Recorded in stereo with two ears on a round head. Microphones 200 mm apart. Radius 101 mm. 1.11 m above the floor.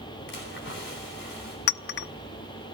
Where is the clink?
50° left (ahead or behind), 0.6 m.